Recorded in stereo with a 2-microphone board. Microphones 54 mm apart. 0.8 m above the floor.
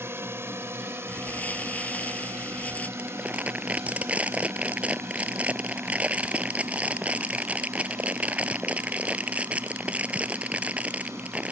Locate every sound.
0.0 s a drone: 45° right (ahead or behind); by 11.5 s 55° right (ahead or behind)
1.1 s crumpling: 25° left (ahead or behind)
3.0 s crumpling: 25° right (ahead or behind)